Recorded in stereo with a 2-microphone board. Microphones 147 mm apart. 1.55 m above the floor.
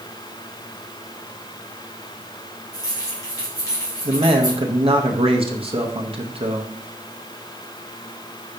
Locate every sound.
2.7 s keys jangling: 25° left (ahead or behind), 3.5 m
4.0 s a man speaking: 40° right (ahead or behind), 0.8 m